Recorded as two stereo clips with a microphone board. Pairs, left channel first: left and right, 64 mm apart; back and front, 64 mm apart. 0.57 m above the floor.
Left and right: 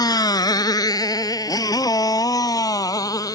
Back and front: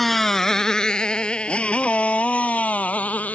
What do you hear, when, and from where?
0.0 s a motorcycle: 95° left; by 3.4 s 115° left